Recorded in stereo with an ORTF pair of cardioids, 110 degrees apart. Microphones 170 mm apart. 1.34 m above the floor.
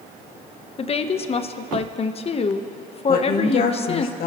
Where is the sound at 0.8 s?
35° left, 1.0 m.